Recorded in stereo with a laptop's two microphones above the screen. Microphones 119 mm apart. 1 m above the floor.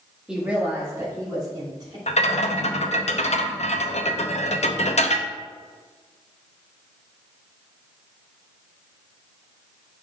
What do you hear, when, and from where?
0.3 s a woman speaking: 5° right (ahead or behind), 1.7 m; by 2.0 s 40° right (ahead or behind), 2.5 m
2.1 s a rattle: 65° left (ahead or behind), 0.6 m